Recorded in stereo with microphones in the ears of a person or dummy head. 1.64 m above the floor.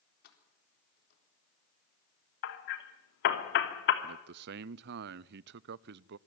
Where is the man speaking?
65° right (ahead or behind), 0.5 m.